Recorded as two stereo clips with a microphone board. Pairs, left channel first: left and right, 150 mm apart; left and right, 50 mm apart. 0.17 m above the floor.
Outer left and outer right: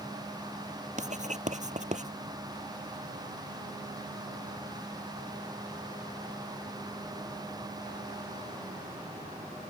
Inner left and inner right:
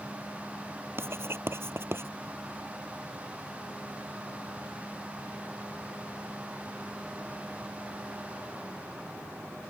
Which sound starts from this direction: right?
Writing, at 1.0 s.